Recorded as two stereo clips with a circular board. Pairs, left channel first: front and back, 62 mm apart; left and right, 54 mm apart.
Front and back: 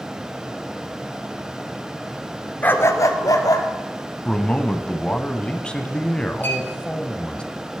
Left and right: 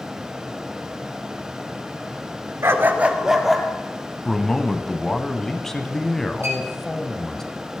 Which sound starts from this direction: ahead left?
A man speaking, at 4.2 s.